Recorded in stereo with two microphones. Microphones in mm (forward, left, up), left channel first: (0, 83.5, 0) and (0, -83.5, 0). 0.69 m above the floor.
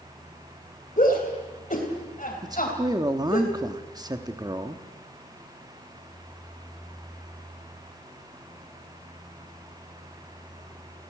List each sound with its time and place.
1.0 s a shout: 50° left (ahead or behind), 3.5 m
2.4 s a man speaking: 25° right (ahead or behind), 1.1 m